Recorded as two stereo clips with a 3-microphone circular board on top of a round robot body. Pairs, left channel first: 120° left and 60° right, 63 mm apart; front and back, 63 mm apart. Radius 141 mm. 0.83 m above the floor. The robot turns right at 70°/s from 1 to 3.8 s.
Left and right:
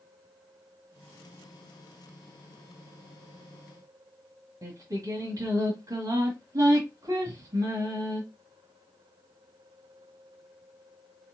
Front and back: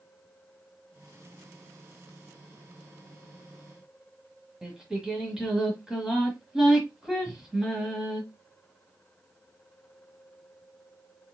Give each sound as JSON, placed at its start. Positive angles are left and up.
{"t": 4.6, "sound": "singing", "azimuth_deg": -100, "distance_m": 1.5}